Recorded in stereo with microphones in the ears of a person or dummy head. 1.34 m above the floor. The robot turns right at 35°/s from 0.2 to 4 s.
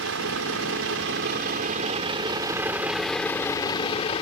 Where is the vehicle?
100° right; by 4.2 s 30° left.